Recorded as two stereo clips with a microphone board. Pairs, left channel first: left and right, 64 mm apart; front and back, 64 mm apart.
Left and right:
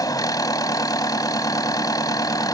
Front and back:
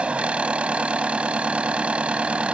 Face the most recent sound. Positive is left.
turn(degrees=105)